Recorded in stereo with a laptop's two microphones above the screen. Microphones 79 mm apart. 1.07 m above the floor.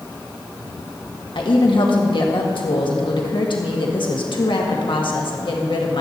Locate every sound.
1.4 s a woman speaking: 70° left (ahead or behind), 1.5 m